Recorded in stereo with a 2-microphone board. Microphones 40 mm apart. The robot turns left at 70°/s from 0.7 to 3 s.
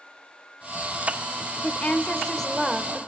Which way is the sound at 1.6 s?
65° left.